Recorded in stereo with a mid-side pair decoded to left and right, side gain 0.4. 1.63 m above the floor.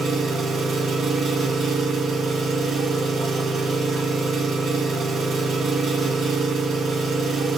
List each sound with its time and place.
0.0 s an engine running: 65° right, 4.5 m